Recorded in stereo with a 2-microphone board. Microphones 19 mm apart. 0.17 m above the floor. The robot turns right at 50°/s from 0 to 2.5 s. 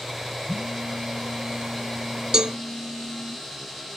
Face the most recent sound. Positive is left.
turn(degrees=-50)  # may be behind; listen again after turning